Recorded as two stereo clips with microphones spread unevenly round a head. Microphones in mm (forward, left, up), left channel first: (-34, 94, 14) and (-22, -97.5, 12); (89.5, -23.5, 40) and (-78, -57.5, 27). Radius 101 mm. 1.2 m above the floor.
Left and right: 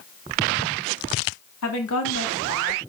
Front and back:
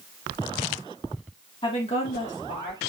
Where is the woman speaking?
80° left, 2.5 m; by 2.8 s 55° left, 2.5 m.